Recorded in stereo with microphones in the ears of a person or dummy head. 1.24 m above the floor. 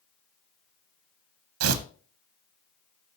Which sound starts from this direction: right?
Tearing paper, at 1.6 s.